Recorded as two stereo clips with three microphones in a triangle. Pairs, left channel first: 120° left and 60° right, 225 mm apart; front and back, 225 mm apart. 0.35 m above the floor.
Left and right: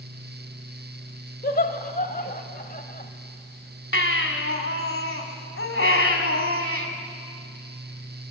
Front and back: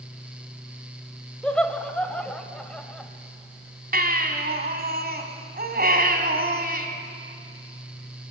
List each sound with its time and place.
1.4 s laughter: 85° left, 1.3 m
3.9 s a baby crying: 135° left, 1.7 m